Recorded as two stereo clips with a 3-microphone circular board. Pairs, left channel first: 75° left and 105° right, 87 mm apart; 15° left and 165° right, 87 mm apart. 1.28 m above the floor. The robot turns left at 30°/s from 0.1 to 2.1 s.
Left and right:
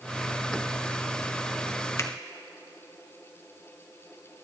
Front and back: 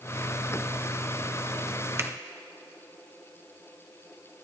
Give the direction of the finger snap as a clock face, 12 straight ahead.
8 o'clock.